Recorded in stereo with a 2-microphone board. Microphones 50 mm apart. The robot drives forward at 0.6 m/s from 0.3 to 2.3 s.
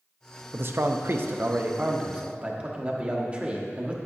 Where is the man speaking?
50° right (ahead or behind), 0.6 m; by 4.0 s 25° right (ahead or behind), 1.1 m.